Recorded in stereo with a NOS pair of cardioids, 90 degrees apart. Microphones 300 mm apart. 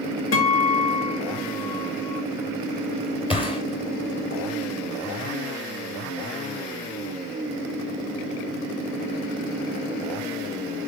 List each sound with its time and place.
0.3 s a guitar: 60° left, 2.5 m
3.3 s a gunshot: 20° left, 2 m